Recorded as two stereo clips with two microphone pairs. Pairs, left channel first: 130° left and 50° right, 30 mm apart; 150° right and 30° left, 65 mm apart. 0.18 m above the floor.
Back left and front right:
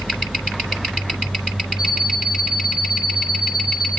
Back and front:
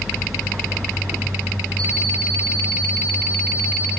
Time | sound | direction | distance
1.8 | an alarm clock | 15° left | 2.5 m